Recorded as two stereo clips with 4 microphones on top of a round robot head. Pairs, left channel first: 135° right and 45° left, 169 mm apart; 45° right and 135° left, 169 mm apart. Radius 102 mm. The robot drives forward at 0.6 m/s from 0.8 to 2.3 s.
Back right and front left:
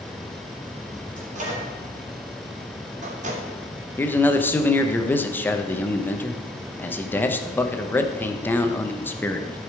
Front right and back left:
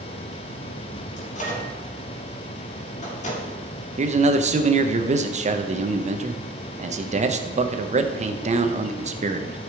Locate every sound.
1.2 s a microwave: straight ahead, 3 m
4.0 s a man speaking: 150° left, 1.0 m